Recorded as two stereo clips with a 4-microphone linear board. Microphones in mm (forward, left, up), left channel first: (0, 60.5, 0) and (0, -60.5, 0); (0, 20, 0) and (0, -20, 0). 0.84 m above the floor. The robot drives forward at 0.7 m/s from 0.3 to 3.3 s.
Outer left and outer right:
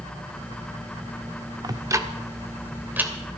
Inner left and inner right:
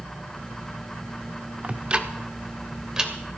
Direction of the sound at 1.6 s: 35° right (ahead or behind).